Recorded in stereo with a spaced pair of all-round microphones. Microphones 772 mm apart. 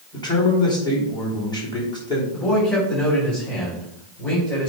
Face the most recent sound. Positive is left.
turn(degrees=25)  # may be behind; listen again after turning